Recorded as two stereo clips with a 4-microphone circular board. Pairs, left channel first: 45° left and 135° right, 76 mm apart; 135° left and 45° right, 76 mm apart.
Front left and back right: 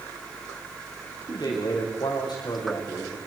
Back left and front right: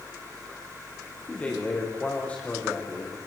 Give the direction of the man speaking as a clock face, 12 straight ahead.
10 o'clock.